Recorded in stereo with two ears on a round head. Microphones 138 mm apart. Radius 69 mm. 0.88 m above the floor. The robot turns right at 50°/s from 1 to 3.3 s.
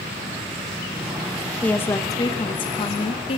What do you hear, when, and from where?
1.6 s a woman speaking: 15° left, 1.1 m; by 3.4 s 100° left, 1.1 m